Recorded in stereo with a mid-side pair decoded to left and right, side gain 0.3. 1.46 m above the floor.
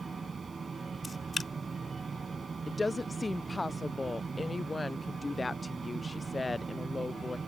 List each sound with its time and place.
0.0 s a fan: 50° right
1.0 s a camera shutter: 40° left
2.7 s a woman speaking: 30° left